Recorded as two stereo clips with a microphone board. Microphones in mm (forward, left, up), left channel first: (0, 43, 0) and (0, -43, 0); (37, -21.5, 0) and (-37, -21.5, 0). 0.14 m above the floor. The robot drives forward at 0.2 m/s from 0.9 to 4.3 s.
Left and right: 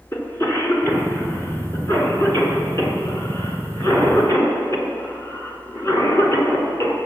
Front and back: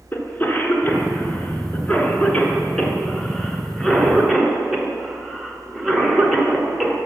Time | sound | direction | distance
0.1 | a cough | 50° left | 1.5 m